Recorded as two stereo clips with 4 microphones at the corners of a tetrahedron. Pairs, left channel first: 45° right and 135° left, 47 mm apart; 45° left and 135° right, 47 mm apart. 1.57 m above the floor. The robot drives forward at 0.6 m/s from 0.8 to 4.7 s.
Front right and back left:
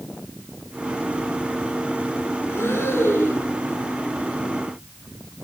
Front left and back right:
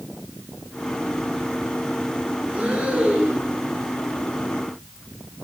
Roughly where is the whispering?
I don't hear whispering.